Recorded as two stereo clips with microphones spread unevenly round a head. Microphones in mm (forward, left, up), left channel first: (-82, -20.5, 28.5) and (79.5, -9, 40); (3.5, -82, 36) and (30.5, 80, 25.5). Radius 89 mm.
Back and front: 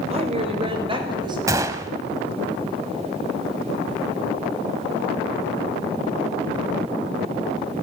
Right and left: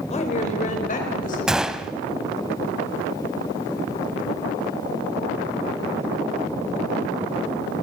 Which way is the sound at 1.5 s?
10° right.